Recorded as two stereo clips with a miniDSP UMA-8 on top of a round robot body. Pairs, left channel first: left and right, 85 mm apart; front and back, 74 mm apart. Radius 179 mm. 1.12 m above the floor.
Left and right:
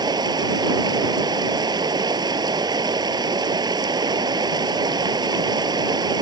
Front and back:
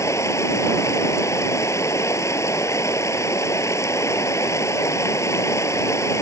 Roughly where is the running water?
Ahead right.